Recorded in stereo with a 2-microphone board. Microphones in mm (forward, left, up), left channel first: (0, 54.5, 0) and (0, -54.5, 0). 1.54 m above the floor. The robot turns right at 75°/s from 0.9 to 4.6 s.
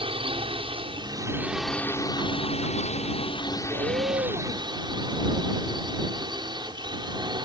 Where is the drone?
55° right; by 7.5 s 140° right.